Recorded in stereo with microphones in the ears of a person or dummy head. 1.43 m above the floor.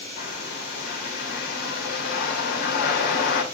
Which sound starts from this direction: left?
A bird, at 0.2 s.